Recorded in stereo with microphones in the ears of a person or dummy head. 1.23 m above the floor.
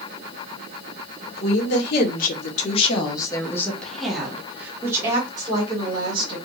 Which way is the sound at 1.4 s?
65° left (ahead or behind).